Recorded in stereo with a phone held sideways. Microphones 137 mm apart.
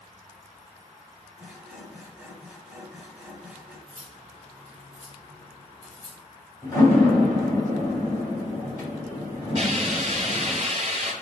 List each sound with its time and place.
1.4 s sawing: 5° right (ahead or behind), 1.3 m
3.9 s cutlery clinking: 65° left (ahead or behind), 1.5 m
6.6 s a door slam: 25° left (ahead or behind), 2.5 m
9.6 s a hiss: 50° right (ahead or behind), 2 m